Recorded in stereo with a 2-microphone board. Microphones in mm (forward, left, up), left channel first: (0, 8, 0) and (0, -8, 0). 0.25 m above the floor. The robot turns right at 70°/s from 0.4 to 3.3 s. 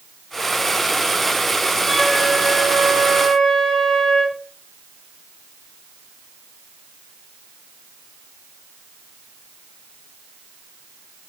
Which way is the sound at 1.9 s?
30° left.